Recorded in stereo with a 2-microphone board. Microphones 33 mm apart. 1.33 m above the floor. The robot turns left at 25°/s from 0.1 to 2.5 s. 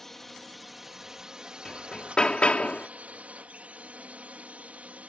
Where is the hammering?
15° left (ahead or behind); by 2.9 s 35° left (ahead or behind).